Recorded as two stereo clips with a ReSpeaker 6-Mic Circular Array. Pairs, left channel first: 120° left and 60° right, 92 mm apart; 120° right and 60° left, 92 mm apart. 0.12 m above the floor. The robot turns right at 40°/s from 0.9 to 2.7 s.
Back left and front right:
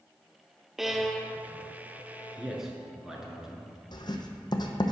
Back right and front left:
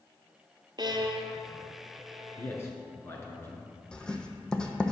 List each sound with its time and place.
0.8 s a violin: 25° left, 0.6 m; by 2.6 s 95° left, 0.6 m
2.4 s a man speaking: 150° right, 1.3 m; by 3.7 s 135° right, 1.3 m
3.9 s writing: 160° left, 0.8 m